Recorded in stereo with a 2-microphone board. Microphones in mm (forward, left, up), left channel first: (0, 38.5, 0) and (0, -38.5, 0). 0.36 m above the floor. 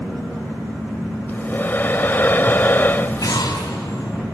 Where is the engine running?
10° right (ahead or behind), 5.5 m.